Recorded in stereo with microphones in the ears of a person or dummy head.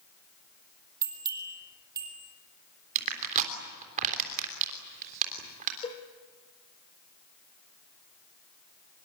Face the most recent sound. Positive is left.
turn(degrees=25)  # may be behind; listen again after turning